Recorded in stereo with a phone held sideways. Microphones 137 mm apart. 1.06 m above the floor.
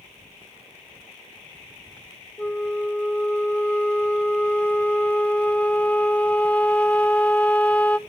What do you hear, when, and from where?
2.4 s a flute: 10° left (ahead or behind), 0.8 m